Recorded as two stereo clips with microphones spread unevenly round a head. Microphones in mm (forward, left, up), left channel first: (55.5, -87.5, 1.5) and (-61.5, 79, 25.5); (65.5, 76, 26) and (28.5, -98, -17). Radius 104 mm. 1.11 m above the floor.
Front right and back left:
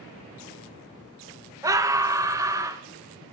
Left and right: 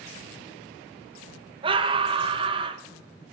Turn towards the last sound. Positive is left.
turn(degrees=-160)